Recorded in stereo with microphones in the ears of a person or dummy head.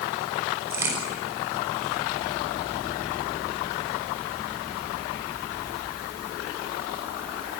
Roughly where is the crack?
Centre.